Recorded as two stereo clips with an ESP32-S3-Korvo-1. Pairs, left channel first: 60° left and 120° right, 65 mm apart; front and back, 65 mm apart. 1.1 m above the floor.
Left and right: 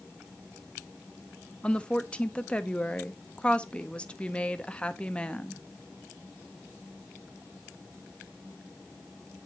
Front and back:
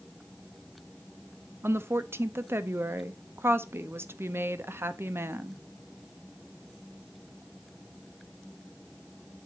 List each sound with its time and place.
1.6 s a woman speaking: 130° left, 0.6 m